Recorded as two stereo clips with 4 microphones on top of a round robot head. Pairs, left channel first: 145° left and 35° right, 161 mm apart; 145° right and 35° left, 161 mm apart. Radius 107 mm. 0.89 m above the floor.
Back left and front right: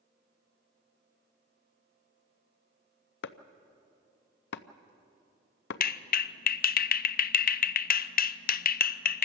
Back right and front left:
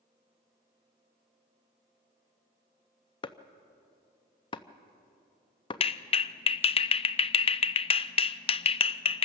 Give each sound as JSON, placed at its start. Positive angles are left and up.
{"t": 3.2, "sound": "chopping", "azimuth_deg": 150, "distance_m": 0.6}
{"t": 5.8, "sound": "a clap", "azimuth_deg": 160, "distance_m": 0.5}